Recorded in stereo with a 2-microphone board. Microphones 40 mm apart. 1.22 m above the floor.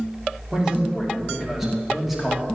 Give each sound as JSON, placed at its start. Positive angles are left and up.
{"t": 0.5, "sound": "a man speaking", "side_deg": -15, "distance_m": 3.0}